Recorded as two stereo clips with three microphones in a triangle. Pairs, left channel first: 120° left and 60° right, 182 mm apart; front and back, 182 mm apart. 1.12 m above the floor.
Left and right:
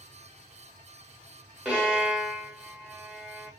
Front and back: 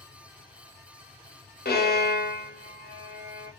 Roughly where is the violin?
Ahead left.